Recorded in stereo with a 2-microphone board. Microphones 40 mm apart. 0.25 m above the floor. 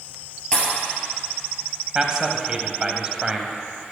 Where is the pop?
20° left (ahead or behind), 3.5 m.